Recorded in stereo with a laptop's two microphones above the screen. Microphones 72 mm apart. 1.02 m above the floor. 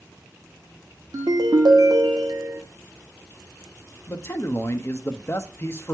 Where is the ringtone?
65° right (ahead or behind), 1.0 m.